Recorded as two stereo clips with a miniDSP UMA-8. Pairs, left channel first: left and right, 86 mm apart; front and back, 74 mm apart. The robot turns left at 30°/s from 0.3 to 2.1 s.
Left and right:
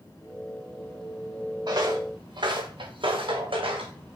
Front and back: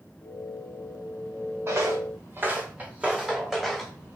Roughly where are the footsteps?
Behind right.